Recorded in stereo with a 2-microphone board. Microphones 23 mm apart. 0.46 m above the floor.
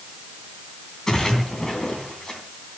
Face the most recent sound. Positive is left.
turn(degrees=20)  # may be behind; listen again after turning